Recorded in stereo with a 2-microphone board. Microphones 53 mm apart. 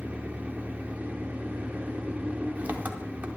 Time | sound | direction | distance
0.0 | an engine running | 30° right (ahead or behind) | 1.0 m